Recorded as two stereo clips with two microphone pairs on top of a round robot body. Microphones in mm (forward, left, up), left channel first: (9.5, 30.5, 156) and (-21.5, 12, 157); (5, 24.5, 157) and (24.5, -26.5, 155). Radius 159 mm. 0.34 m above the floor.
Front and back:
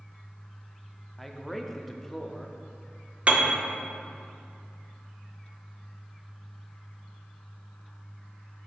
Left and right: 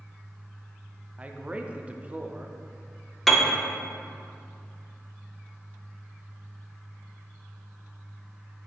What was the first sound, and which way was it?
A man speaking, 40° right.